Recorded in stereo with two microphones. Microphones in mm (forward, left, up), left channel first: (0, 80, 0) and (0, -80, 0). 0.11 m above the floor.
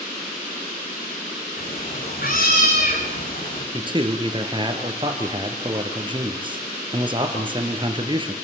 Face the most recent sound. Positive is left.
turn(degrees=-30)  # may be behind; listen again after turning